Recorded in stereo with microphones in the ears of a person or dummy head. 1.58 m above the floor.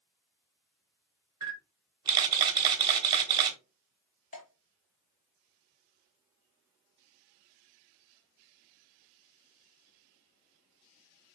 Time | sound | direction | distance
1.4 | a camera shutter | 25° right (ahead or behind) | 0.8 m
4.3 | dripping | 40° left (ahead or behind) | 1.0 m